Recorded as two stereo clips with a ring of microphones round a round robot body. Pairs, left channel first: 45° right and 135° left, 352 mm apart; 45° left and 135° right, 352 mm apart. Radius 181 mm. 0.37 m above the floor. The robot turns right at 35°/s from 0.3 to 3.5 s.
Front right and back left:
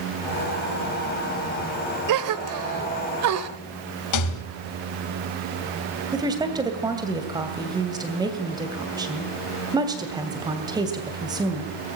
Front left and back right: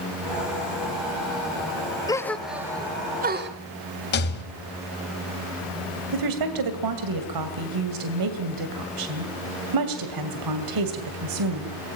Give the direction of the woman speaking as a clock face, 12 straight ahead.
5 o'clock.